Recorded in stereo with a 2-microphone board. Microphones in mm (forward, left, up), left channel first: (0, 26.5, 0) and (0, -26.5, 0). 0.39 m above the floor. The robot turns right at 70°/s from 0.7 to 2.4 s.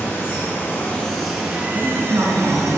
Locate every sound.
0.0 s running water: 140° left, 4.5 m; by 2.8 s 100° right, 4.5 m
1.7 s a woman speaking: 150° right, 5.5 m; by 2.8 s 100° right, 5.5 m